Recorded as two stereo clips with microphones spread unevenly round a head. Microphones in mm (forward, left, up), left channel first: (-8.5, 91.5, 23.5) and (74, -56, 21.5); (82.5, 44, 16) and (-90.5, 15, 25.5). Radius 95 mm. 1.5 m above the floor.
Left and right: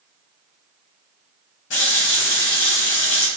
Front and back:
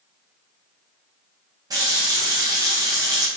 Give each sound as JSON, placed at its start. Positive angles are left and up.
{"t": 1.7, "sound": "a running tap", "azimuth_deg": 125, "distance_m": 1.1}